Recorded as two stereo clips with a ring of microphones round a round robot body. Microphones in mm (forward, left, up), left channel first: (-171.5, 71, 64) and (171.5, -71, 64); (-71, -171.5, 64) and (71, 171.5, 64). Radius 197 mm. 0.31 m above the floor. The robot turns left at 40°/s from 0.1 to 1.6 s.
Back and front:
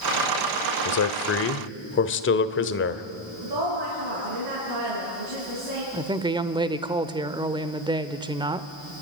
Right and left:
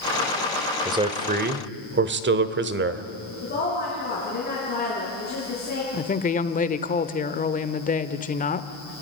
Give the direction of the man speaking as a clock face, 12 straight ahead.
7 o'clock.